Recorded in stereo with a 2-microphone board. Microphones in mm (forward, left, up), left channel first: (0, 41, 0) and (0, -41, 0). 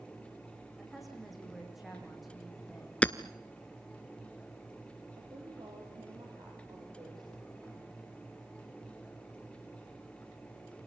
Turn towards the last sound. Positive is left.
turn(degrees=-60)  # may be behind; listen again after turning